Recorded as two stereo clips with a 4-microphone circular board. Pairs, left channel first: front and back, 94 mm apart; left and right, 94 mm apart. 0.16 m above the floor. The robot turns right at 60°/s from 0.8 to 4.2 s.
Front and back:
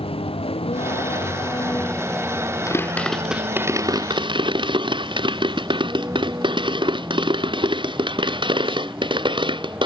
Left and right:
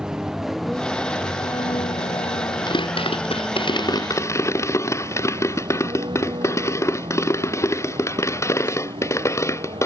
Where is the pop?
55° left; by 9.9 s 150° left.